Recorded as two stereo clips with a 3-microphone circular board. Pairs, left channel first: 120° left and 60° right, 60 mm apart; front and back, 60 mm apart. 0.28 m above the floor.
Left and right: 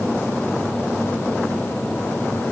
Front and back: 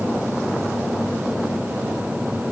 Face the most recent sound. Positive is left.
No sound to turn to.